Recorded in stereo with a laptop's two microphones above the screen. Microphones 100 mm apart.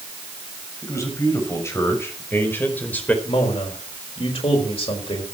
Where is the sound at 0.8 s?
30° left (ahead or behind), 6 m; by 3.1 s 15° left (ahead or behind), 4 m.